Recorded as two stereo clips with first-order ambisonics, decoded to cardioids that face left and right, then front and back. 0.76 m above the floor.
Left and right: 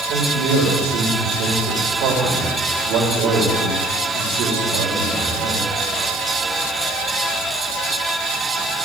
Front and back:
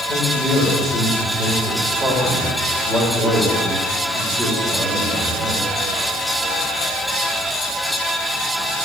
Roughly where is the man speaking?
Right.